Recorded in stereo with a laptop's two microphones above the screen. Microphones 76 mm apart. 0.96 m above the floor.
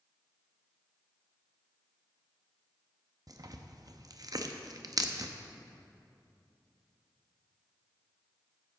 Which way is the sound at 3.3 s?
50° right (ahead or behind).